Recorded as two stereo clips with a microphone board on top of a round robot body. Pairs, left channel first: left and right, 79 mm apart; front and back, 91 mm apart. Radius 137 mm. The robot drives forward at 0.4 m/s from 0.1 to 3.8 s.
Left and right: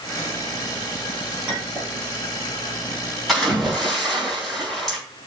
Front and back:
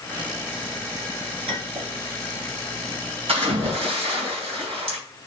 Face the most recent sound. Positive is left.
turn(degrees=175)